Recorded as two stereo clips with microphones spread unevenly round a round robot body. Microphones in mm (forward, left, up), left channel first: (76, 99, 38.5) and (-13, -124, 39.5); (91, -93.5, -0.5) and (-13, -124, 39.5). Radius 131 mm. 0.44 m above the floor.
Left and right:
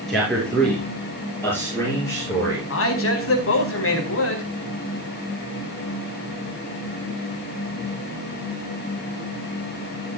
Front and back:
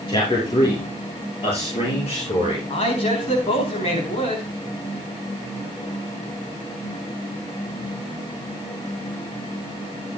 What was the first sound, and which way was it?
A man speaking, 20° right.